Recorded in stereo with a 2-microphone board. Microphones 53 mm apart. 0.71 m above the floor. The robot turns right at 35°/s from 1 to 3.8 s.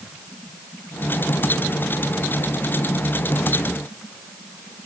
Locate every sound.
Only background noise.